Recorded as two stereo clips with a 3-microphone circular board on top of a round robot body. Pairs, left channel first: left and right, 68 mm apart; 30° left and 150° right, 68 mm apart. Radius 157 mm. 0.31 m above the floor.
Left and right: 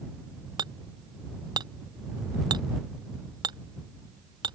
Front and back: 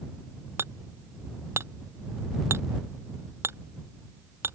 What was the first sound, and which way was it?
Hammering, 95° right.